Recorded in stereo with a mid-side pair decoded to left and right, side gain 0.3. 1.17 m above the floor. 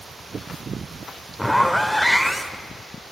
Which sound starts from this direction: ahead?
A zipper, at 1.4 s.